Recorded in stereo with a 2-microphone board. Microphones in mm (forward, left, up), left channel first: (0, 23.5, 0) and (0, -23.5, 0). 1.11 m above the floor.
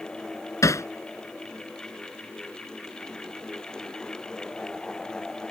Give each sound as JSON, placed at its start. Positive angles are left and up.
{"t": 0.6, "sound": "hammering", "side_deg": 80}